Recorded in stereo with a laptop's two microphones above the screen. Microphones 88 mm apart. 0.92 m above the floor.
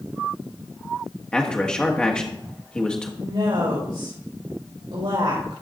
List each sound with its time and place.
1.3 s a man speaking: 10° left (ahead or behind), 1.4 m
3.2 s a woman speaking: 70° right (ahead or behind), 4 m